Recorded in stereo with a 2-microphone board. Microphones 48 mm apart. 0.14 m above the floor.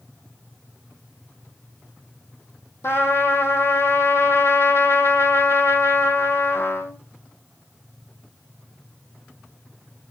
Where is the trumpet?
60° left (ahead or behind), 1.6 m.